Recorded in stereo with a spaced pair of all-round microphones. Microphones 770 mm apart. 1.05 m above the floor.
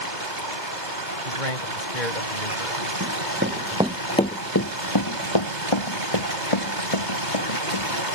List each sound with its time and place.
0.0 s running water: 75° right (ahead or behind)
1.2 s a man speaking: 80° left
3.0 s running footsteps: 20° right (ahead or behind); by 8.0 s 40° left (ahead or behind)